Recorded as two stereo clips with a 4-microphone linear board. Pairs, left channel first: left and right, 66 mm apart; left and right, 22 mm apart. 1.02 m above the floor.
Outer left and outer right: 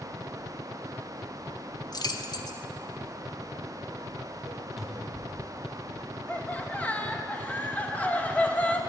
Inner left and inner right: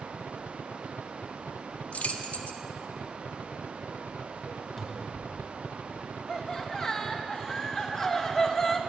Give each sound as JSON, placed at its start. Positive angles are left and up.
{"t": 1.9, "sound": "keys jangling", "side_deg": 70, "distance_m": 0.7}
{"t": 4.8, "sound": "a cupboard door", "side_deg": 0, "distance_m": 1.2}
{"t": 6.3, "sound": "laughter", "side_deg": 25, "distance_m": 1.1}